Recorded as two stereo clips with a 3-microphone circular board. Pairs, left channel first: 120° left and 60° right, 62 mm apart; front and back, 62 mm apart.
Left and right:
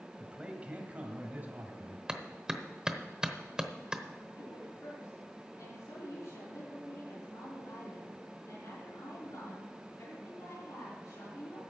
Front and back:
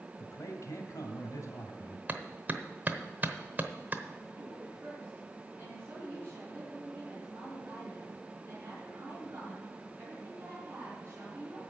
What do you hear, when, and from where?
0.2 s a man speaking: 10° left, 2 m; by 2.0 s 10° right, 2.5 m
2.1 s a clap: 135° right, 0.9 m
4.3 s a woman speaking: 130° left, 5.5 m